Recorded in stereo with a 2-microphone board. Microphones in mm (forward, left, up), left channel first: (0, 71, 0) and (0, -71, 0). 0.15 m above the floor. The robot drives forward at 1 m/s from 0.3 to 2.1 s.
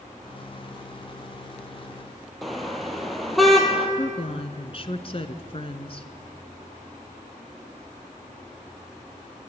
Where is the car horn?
Centre (ahead or behind), 2.5 m.